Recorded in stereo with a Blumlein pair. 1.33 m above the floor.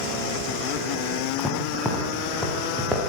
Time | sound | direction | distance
1.4 | footsteps | straight ahead | 5.5 m